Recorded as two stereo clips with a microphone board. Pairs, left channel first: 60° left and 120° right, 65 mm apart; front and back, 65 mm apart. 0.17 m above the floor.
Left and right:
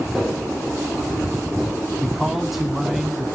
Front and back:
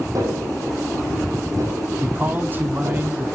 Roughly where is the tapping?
Behind left.